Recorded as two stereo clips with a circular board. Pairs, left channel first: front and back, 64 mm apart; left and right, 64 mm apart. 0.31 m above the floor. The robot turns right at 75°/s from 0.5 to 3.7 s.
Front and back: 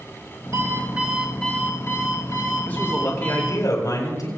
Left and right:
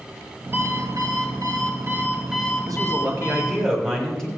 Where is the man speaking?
70° right, 6 m; by 4.3 s 10° left, 6 m.